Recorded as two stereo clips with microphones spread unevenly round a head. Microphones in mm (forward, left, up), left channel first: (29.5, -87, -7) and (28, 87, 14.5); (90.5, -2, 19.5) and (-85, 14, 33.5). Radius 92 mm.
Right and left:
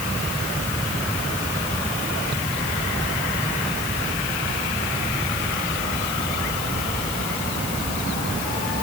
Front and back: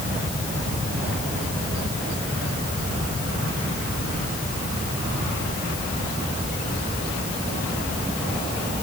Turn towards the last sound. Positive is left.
No sound to turn to.